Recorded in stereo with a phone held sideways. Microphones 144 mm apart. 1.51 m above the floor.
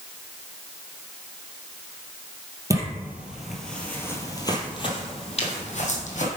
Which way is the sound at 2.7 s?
20° right (ahead or behind).